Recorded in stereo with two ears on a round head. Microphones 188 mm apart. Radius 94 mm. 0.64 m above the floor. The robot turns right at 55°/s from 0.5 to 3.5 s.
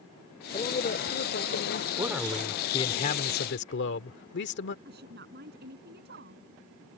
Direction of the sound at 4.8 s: 50° right (ahead or behind).